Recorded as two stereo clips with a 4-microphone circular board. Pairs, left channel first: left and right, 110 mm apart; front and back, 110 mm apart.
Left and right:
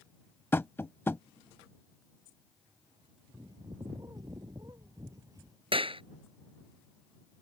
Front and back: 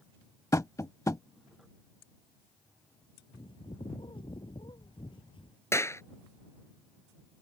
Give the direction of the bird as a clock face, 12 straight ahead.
1 o'clock.